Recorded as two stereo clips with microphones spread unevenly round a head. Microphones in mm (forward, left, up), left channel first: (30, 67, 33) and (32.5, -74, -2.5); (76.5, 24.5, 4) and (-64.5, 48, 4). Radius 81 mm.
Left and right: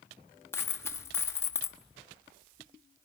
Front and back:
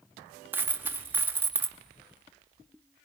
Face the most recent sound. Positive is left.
turn(degrees=110)